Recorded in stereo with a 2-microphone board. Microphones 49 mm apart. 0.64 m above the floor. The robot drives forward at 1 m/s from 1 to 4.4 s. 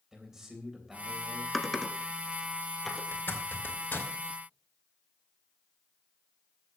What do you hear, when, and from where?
0.1 s a man speaking: 10° right (ahead or behind), 3.5 m
1.5 s typing on a keyboard: 5° left (ahead or behind), 1.2 m
3.1 s a zipper: 50° left (ahead or behind), 2 m; by 4.1 s 35° left (ahead or behind), 2.5 m